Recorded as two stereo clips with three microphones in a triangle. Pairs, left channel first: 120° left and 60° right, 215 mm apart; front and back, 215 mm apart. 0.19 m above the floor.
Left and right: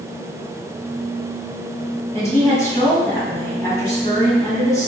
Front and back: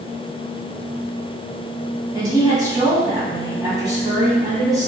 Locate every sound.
2.1 s a woman speaking: 160° left, 1.6 m